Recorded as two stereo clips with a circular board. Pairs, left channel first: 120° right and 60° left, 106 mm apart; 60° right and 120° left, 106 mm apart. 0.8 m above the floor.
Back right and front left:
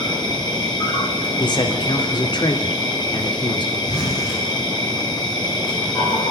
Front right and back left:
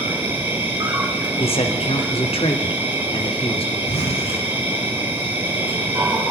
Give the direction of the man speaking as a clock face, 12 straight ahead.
3 o'clock.